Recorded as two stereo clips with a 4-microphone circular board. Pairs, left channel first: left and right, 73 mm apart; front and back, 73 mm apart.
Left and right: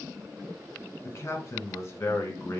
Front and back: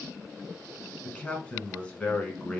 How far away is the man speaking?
About 1.6 m.